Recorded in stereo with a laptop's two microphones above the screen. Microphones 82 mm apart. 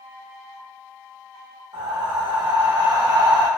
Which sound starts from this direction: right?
Breathing, at 1.7 s.